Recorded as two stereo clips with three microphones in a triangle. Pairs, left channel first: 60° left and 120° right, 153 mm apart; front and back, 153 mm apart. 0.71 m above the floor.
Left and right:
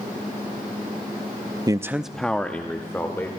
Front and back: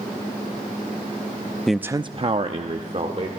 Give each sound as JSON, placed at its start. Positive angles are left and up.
{"t": 1.7, "sound": "a man speaking", "azimuth_deg": -85, "distance_m": 0.6}